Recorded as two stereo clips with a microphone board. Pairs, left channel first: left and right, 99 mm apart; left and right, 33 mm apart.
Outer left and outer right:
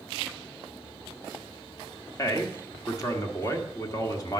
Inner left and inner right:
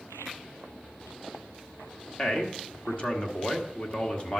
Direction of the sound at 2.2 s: 35° left (ahead or behind).